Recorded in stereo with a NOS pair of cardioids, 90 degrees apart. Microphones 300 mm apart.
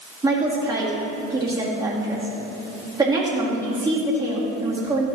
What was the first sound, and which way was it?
A woman speaking, 15° right.